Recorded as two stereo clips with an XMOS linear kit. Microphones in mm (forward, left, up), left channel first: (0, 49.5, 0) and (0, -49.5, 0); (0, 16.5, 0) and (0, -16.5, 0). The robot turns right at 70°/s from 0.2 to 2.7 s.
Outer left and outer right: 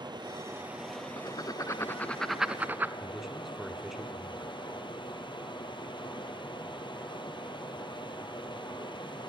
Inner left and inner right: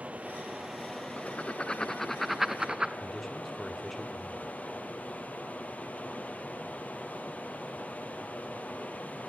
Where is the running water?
50° right, 1.3 m; by 9.3 s 125° left, 1.3 m.